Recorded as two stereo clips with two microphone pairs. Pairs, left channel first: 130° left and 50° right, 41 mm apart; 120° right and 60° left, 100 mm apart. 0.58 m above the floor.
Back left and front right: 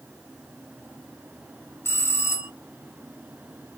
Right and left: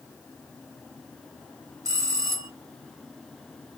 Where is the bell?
115° left, 0.8 m.